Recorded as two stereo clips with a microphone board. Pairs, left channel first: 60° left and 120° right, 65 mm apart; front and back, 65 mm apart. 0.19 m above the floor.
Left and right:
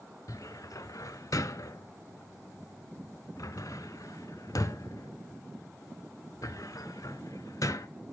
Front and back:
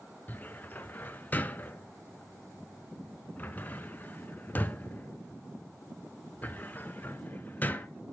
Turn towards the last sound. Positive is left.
turn(degrees=55)